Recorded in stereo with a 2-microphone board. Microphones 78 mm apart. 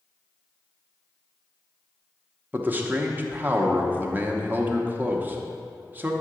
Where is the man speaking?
25° right (ahead or behind), 0.8 m.